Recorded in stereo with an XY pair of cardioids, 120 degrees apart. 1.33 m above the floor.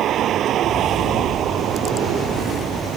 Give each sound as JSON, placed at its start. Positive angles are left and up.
{"t": 0.0, "sound": "a vehicle", "azimuth_deg": -60}